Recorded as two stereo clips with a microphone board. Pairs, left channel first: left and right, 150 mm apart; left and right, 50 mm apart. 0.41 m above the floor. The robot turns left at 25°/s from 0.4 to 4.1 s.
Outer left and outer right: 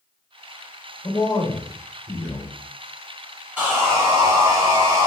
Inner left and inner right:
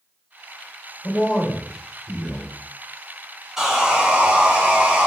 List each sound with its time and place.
1.0 s a man speaking: 40° left, 1.2 m; by 2.5 s 5° left, 1.2 m
3.6 s sawing: 10° right (ahead or behind), 1.1 m; by 5.1 s 25° right (ahead or behind), 1.1 m